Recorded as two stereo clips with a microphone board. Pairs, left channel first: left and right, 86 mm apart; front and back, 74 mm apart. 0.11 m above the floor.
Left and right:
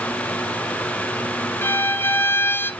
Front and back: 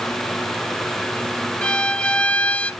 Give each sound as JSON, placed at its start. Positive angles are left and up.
{"t": 1.6, "sound": "a violin", "azimuth_deg": 60, "distance_m": 0.6}